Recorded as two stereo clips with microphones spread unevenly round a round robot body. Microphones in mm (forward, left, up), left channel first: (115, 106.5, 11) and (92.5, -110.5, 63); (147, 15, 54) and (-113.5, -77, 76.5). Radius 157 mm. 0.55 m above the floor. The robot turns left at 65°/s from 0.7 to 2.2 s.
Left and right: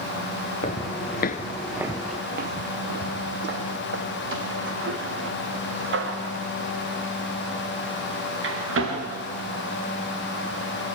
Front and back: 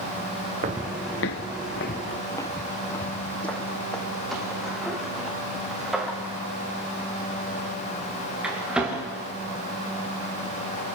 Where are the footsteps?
155° left, 0.6 m; by 9.0 s 75° right, 6 m.